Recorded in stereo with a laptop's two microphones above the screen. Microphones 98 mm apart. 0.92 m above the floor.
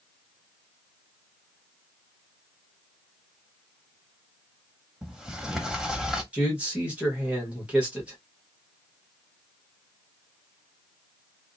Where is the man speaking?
15° right (ahead or behind), 1.1 m.